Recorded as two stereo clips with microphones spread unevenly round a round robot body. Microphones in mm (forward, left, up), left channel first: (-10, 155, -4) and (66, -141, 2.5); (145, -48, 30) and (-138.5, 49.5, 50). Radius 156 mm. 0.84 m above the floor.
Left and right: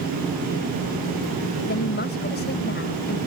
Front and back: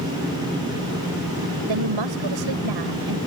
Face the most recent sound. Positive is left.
turn(degrees=165)